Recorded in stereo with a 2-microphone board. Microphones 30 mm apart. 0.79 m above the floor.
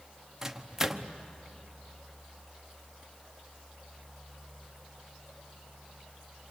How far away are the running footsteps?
I don't hear running footsteps.